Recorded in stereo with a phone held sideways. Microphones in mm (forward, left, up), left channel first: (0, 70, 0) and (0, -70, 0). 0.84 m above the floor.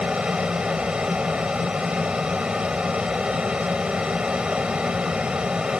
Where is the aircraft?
5° right (ahead or behind).